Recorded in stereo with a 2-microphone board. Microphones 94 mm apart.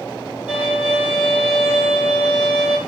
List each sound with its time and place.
0.5 s a violin: 10° right (ahead or behind), 2.5 m